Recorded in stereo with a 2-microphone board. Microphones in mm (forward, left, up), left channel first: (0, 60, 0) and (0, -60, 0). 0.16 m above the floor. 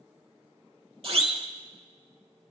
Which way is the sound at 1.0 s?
55° right (ahead or behind).